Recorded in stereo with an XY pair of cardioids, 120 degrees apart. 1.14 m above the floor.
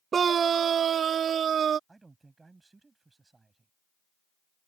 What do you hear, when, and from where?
0.1 s a scream: 40° right; by 1.8 s 50° right
1.9 s a man speaking: 20° right